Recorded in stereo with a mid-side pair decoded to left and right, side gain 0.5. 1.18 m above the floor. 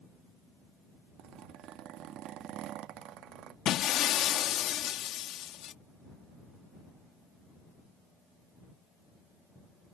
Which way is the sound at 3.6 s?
65° left.